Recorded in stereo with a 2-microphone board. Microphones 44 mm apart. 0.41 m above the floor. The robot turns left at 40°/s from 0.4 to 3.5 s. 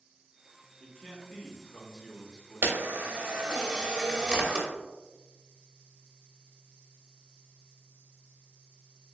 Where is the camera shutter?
55° right (ahead or behind), 0.6 m; by 4.7 s 20° right (ahead or behind), 0.6 m.